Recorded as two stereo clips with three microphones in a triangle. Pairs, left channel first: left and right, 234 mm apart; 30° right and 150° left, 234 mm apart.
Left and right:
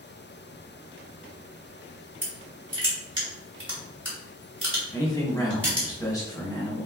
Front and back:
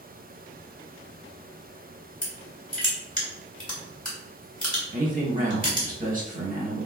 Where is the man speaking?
155° left, 0.8 m.